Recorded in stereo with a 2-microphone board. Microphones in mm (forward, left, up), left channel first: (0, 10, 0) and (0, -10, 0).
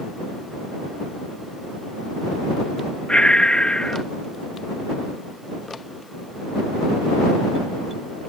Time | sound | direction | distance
3.1 | breathing | 85° left | ?